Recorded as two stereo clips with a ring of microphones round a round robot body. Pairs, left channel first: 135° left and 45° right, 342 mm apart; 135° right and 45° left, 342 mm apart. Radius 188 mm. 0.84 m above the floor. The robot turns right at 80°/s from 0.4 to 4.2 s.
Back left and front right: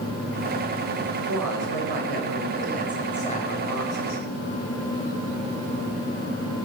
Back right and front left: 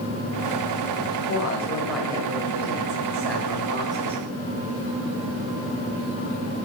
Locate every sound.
1.3 s a woman speaking: 100° right, 4.5 m; by 4.2 s 135° left, 4.5 m